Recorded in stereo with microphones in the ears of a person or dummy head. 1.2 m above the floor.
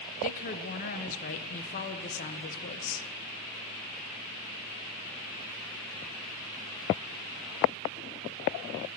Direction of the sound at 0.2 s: 40° left (ahead or behind).